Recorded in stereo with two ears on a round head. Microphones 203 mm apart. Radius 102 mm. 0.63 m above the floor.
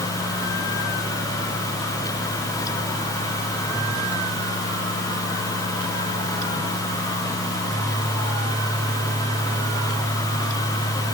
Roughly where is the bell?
I don't hear a bell.